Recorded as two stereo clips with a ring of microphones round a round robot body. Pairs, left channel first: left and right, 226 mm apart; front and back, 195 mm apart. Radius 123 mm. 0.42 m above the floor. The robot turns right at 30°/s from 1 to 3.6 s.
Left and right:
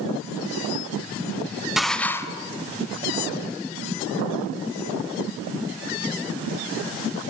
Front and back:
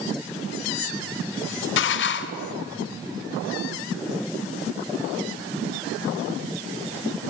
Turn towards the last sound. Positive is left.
turn(degrees=55)